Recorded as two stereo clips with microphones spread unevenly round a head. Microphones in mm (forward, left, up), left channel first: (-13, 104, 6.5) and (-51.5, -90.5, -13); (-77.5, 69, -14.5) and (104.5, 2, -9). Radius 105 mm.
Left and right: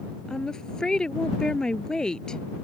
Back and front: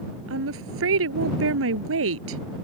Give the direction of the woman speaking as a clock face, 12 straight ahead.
12 o'clock.